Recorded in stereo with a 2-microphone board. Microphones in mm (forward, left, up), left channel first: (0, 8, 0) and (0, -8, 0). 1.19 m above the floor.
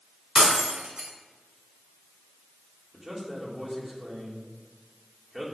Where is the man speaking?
5° right (ahead or behind), 3 m.